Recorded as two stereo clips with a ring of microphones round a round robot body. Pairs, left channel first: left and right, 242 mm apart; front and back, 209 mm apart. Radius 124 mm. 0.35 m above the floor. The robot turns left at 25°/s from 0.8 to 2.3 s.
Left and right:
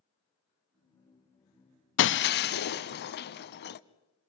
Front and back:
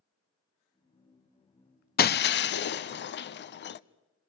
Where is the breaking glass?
45° left, 0.7 m; by 3.8 s 40° left, 0.7 m.